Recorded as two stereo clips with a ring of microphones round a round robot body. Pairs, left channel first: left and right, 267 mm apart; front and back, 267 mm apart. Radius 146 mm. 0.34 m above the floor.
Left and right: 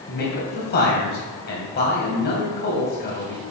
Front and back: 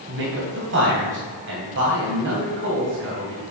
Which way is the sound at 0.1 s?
140° left.